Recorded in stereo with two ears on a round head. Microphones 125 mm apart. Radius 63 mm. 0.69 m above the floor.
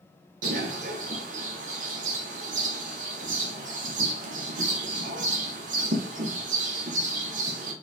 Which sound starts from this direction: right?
A bird, at 0.4 s.